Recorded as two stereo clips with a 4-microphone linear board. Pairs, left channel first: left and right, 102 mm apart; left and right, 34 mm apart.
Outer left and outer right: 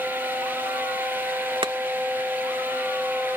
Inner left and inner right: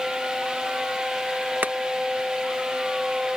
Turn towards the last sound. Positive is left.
turn(degrees=-60)  # may be behind; listen again after turning